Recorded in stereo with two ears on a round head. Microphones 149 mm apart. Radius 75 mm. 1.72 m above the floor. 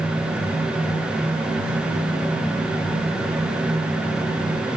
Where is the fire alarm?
No fire alarm in this recording.